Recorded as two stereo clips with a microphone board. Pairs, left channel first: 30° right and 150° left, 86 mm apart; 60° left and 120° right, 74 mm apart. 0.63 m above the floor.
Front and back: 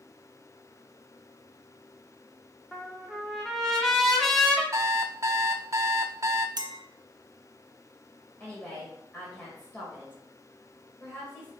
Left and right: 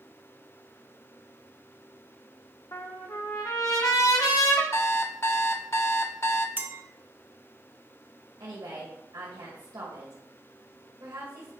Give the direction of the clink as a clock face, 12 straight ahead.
6 o'clock.